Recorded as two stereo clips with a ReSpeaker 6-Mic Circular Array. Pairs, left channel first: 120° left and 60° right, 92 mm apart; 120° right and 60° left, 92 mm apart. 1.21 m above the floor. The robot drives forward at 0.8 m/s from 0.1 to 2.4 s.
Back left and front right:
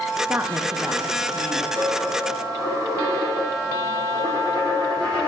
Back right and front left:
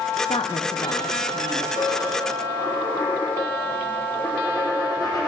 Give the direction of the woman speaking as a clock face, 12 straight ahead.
4 o'clock.